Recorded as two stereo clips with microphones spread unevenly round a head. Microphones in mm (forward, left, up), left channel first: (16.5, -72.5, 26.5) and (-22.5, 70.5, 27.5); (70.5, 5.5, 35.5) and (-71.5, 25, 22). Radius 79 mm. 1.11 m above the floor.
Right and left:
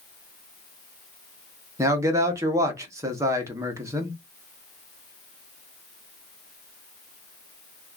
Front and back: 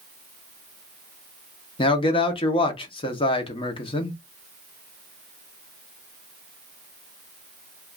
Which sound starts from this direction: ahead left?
A man speaking, at 1.8 s.